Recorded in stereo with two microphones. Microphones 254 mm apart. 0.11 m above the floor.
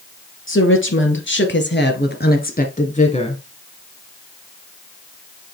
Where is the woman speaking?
50° left (ahead or behind), 2.5 m; by 3.4 s 20° left (ahead or behind), 1.9 m.